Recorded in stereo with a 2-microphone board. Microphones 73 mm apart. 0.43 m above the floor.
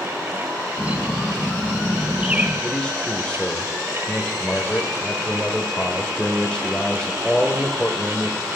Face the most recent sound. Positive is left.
turn(degrees=15)  # may be behind; listen again after turning